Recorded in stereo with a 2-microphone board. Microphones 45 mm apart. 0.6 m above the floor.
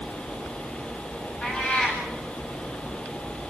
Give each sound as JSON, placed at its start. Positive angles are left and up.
{"t": 1.4, "sound": "a cat meowing", "side_deg": 20, "distance_m": 9.5}